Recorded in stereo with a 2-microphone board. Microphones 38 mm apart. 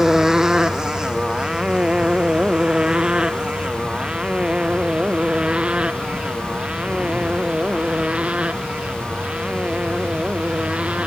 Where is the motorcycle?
10° right (ahead or behind); by 11.1 s 30° right (ahead or behind).